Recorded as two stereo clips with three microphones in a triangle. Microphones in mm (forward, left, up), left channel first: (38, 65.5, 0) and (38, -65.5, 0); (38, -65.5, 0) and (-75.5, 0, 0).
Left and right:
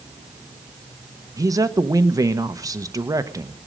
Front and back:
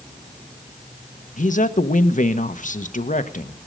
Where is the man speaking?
25° right, 1.1 m.